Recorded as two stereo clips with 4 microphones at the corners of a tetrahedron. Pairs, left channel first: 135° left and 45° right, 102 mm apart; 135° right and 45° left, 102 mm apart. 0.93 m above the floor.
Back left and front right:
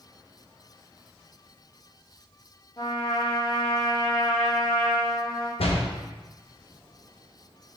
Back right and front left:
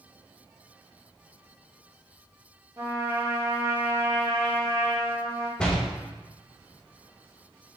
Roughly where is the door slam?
Behind left.